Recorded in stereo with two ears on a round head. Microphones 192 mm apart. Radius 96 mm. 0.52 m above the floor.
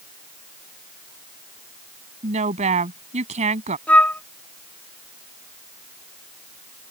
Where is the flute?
10° left (ahead or behind).